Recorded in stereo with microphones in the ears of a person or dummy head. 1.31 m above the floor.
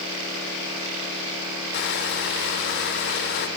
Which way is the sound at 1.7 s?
60° left (ahead or behind).